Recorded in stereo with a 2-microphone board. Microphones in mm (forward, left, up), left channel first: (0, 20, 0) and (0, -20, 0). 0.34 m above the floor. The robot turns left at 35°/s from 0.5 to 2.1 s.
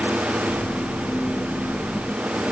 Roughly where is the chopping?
No chopping in this recording.